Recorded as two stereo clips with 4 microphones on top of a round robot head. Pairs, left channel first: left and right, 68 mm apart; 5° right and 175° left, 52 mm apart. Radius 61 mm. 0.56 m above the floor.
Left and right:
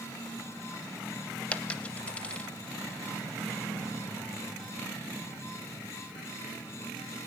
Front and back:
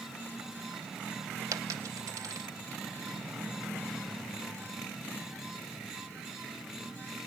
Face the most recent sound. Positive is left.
turn(degrees=160)